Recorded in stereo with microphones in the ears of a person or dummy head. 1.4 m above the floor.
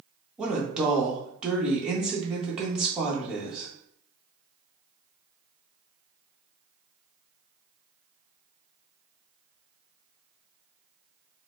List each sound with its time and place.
0.4 s a woman speaking: 5° right (ahead or behind), 1.1 m